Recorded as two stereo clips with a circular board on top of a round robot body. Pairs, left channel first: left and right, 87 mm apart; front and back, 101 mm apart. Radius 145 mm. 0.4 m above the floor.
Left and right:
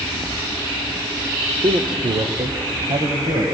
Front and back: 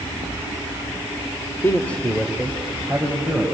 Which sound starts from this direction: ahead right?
A man speaking, at 1.6 s.